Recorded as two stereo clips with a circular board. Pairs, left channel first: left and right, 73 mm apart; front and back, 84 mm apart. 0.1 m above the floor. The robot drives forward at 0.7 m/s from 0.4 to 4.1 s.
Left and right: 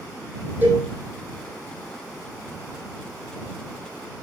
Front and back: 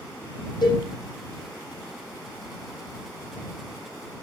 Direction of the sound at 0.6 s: 30° right.